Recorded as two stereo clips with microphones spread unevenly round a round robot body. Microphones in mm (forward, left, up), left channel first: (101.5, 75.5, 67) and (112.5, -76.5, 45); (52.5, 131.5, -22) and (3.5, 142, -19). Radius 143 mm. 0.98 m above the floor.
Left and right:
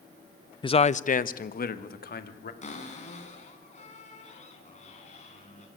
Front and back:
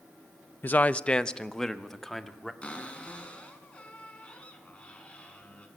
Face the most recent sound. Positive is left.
turn(degrees=55)